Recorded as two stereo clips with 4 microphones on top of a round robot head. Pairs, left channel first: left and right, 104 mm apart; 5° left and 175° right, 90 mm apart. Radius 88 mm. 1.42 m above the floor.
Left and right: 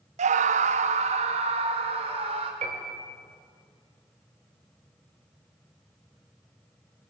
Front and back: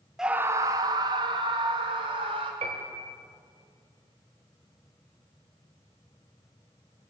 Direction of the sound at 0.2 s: 85° right.